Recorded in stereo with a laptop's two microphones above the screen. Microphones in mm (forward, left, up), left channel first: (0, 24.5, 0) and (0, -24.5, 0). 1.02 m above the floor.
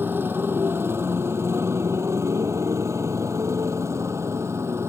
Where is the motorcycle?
50° right (ahead or behind); by 4.9 s 65° right (ahead or behind).